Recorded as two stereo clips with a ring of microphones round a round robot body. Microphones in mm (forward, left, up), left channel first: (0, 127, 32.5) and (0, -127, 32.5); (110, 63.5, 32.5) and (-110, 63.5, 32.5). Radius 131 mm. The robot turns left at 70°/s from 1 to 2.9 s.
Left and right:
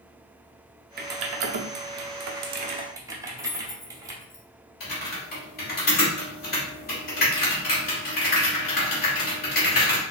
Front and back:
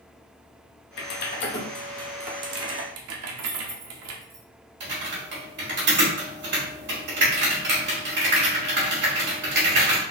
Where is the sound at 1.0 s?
35° right, 0.7 m; by 4.2 s 170° right, 0.7 m.